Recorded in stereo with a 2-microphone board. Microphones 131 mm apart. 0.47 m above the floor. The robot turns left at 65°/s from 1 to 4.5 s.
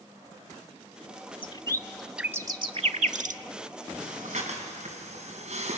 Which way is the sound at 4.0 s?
75° right (ahead or behind).